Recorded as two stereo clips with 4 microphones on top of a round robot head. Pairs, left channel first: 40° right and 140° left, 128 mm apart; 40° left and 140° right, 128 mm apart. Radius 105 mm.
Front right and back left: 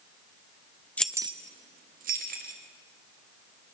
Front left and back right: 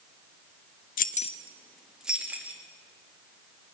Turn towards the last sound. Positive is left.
turn(degrees=140)